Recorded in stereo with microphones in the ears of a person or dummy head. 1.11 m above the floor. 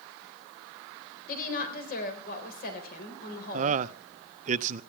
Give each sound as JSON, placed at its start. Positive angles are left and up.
{"t": 1.3, "sound": "a woman speaking", "side_deg": 45, "distance_m": 4.0}
{"t": 3.5, "sound": "a man speaking", "side_deg": -45, "distance_m": 0.6}